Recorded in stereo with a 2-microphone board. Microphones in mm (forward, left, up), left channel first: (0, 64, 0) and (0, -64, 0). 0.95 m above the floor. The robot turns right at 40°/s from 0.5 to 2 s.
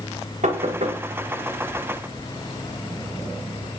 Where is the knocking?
80° right, 2.5 m; by 1.0 s 60° right (ahead or behind), 2.5 m.